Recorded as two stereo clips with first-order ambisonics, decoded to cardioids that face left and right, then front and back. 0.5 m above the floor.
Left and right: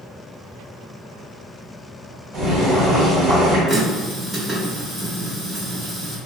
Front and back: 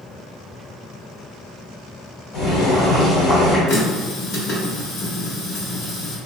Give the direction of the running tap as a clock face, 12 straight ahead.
1 o'clock.